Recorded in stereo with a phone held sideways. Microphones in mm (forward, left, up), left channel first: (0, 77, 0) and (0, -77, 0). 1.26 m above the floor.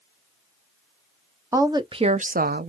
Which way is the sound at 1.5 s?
20° right (ahead or behind).